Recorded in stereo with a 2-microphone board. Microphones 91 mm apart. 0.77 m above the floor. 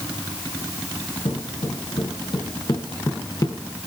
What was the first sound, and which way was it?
Footsteps, 80° left.